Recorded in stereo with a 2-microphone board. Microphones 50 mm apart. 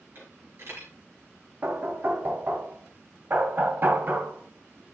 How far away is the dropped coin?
About 4.5 m.